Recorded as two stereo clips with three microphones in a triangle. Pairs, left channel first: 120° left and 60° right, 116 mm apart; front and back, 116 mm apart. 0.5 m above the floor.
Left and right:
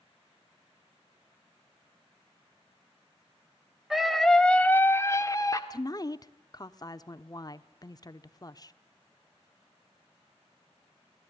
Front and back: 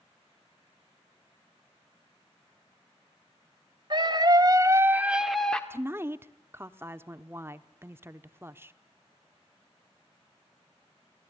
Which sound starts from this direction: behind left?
A woman speaking, at 5.7 s.